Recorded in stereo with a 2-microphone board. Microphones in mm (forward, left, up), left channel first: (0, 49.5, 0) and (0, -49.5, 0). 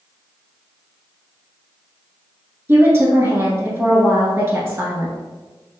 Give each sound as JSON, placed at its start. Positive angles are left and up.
{"t": 2.7, "sound": "a woman speaking", "side_deg": -25, "distance_m": 1.2}